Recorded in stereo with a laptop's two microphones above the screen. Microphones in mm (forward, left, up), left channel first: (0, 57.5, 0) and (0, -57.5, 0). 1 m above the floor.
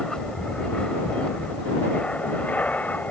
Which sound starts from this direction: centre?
An aircraft, at 0.0 s.